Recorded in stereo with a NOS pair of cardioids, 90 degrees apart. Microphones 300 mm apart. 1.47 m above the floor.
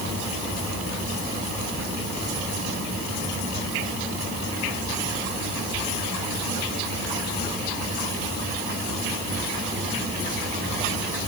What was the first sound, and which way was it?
Only background noise.